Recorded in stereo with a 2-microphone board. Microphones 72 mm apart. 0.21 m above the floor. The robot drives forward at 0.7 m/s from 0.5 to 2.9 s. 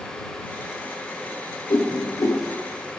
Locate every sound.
1.7 s a whoosh: 75° left (ahead or behind), 0.6 m; by 2.4 s 40° left (ahead or behind), 0.9 m